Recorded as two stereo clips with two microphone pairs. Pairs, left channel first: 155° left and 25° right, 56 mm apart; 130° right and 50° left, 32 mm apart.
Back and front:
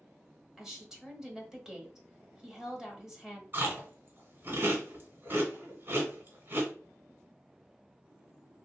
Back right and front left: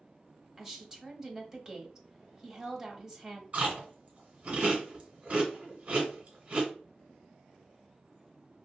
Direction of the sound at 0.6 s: 30° left.